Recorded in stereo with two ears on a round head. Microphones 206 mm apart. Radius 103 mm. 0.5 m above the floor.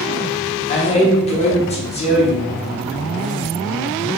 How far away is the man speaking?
About 0.8 m.